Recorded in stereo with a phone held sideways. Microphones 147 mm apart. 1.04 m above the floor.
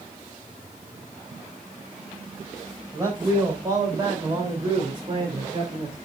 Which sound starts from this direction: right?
A man speaking, at 2.9 s.